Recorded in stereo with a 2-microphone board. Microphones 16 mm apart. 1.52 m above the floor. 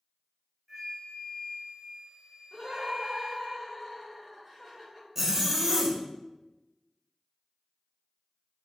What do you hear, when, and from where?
0.7 s a flute: centre (ahead or behind), 2.0 m
2.5 s laughter: centre (ahead or behind), 1.8 m
5.2 s a zipper: 15° right (ahead or behind), 0.8 m